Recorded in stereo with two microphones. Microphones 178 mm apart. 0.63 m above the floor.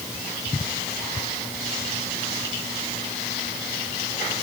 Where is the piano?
I don't hear a piano.